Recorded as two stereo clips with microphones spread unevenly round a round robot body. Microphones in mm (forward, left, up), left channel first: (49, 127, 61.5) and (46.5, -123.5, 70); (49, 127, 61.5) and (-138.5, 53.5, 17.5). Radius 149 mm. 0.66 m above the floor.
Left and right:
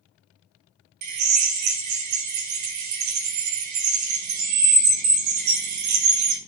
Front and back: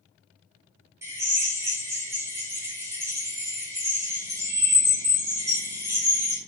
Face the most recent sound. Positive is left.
turn(degrees=-75)